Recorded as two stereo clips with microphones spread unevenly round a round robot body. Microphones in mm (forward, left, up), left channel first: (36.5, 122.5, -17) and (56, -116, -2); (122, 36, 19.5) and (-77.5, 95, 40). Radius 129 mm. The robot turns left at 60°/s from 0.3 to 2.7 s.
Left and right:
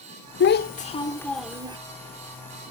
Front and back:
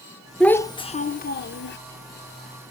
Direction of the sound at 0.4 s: 65° left.